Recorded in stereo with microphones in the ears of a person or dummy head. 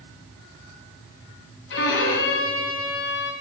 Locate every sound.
1.7 s a violin: 65° left (ahead or behind), 1.9 m